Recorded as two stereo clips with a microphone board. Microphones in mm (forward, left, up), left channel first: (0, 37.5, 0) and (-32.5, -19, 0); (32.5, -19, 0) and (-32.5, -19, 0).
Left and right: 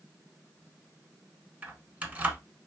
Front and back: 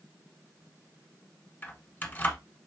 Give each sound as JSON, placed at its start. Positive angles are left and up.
{"t": 1.6, "sound": "keys jangling", "azimuth_deg": -55, "distance_m": 1.3}